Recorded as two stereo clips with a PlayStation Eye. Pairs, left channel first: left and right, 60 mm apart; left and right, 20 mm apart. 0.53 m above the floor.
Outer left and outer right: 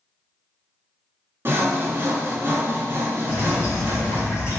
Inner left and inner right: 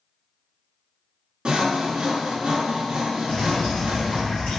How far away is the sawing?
About 0.9 m.